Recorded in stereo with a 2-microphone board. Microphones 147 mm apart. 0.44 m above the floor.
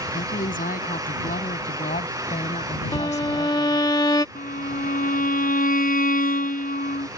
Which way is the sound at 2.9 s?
30° left (ahead or behind).